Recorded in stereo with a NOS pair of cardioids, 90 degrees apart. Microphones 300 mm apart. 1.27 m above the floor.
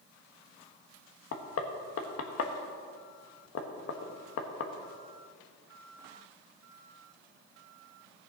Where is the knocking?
50° left, 1.4 m.